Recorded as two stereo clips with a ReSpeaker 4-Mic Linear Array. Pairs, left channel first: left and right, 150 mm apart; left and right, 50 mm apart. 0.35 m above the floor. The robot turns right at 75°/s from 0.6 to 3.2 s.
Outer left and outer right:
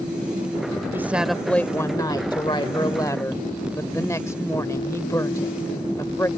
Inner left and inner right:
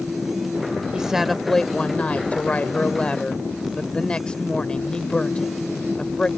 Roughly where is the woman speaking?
Ahead right.